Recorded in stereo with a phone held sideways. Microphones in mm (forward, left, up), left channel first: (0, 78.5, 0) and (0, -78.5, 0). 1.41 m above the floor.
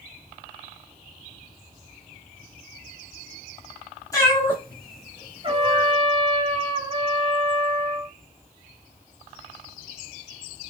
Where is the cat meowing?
20° left (ahead or behind), 2 m; by 5.9 s 25° right (ahead or behind), 2 m.